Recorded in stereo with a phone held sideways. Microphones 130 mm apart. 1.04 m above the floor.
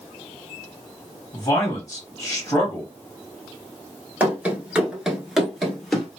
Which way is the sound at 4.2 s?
10° right (ahead or behind).